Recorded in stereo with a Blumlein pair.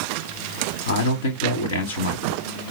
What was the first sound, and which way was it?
A man speaking, 70° left.